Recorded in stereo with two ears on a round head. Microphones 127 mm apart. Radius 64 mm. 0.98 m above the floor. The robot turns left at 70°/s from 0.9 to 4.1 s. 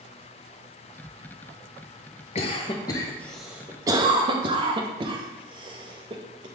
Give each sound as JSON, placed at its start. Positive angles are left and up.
{"t": 2.4, "sound": "a cough", "side_deg": 45, "distance_m": 0.7}